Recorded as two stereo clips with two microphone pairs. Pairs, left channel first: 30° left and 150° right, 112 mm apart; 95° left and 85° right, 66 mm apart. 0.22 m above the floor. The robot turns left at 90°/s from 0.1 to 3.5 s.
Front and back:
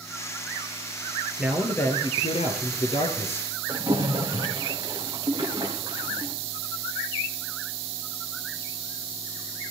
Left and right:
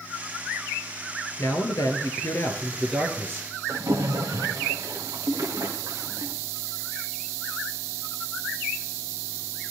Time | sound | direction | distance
1.4 | a man speaking | 135° left | 3.5 m
3.7 | a splash | 95° right | 3.5 m